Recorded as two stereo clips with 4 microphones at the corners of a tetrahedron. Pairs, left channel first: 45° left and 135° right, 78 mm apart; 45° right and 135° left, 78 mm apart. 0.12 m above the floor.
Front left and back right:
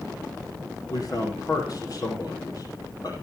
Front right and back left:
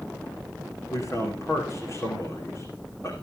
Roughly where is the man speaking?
Ahead.